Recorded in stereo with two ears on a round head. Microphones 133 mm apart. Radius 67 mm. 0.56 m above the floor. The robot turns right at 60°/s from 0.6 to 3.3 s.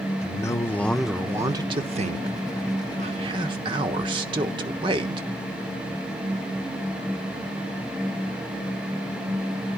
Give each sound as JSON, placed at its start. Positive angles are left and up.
{"t": 0.2, "sound": "a man speaking", "azimuth_deg": 155, "distance_m": 1.2}